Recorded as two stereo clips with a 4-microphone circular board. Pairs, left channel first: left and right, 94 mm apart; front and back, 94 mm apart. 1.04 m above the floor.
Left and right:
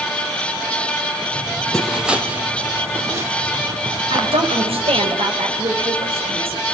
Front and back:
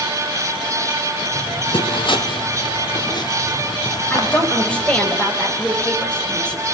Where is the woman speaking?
80° right, 5 m.